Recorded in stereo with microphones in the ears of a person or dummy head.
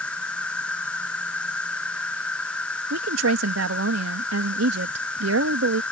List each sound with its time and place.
0.0 s an insect: 10° left (ahead or behind)
2.9 s a woman speaking: 75° right (ahead or behind)